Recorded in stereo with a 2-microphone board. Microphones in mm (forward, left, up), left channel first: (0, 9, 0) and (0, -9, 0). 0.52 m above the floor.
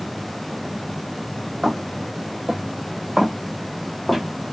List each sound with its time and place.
1.6 s footsteps: 65° right (ahead or behind), 1.6 m; by 4.2 s 5° left (ahead or behind), 1.9 m